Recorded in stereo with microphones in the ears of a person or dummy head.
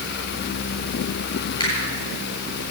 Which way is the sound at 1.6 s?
20° left (ahead or behind).